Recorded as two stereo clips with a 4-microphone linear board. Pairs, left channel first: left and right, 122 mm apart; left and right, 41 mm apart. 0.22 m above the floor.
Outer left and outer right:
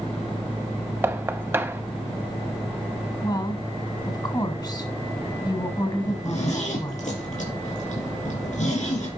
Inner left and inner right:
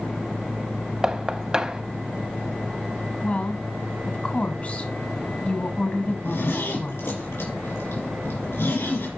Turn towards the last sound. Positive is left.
turn(degrees=75)  # may be behind; listen again after turning